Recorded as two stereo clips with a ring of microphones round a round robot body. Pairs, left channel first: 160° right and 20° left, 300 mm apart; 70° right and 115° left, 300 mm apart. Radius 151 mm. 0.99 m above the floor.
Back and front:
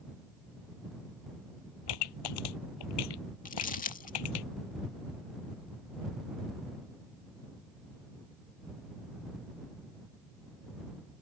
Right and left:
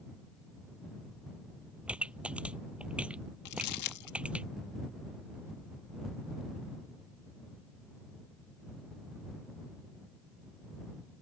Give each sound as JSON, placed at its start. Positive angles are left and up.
{"t": 1.9, "sound": "a pop", "azimuth_deg": -160}
{"t": 3.5, "sound": "crumpling", "azimuth_deg": -95}